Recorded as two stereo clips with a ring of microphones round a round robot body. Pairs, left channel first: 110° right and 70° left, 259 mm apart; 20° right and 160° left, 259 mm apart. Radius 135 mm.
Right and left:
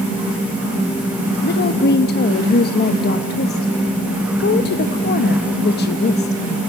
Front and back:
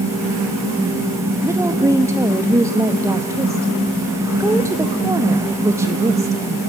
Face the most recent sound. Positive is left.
turn(degrees=-130)